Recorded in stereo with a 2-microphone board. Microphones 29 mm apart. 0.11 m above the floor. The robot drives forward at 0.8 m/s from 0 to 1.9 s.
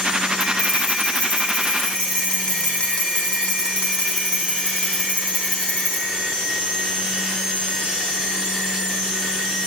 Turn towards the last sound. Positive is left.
turn(degrees=35)  # may be behind; listen again after turning